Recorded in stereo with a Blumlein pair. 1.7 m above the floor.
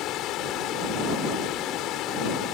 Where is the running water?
35° left.